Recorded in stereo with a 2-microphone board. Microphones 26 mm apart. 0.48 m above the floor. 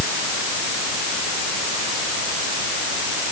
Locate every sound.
Only background noise.